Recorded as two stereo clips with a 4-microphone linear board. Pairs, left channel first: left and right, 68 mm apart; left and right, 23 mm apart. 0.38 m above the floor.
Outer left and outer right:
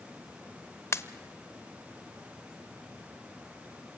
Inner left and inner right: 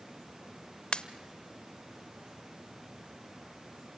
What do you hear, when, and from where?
0.9 s a pop: 45° left (ahead or behind), 0.9 m